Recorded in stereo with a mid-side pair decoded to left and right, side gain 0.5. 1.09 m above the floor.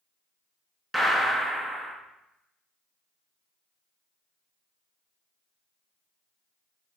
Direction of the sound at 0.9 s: 15° right.